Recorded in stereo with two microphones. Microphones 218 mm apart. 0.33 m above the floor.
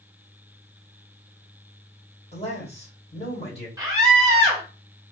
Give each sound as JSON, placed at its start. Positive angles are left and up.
{"t": 2.3, "sound": "a man speaking", "side_deg": 30, "distance_m": 1.6}
{"t": 3.8, "sound": "a scream", "side_deg": -15, "distance_m": 1.4}